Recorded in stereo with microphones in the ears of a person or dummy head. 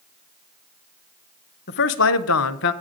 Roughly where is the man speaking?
Left.